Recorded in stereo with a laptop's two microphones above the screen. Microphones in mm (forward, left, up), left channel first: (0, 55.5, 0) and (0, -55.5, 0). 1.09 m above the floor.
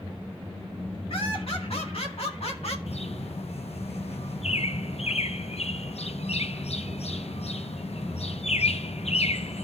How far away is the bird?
About 0.6 m.